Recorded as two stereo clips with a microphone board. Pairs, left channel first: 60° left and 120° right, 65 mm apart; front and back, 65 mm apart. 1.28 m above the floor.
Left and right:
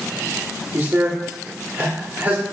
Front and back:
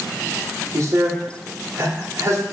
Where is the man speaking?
175° right, 0.7 m.